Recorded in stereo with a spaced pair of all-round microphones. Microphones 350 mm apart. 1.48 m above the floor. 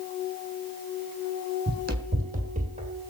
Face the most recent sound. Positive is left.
turn(degrees=-20)  # may be behind; listen again after turning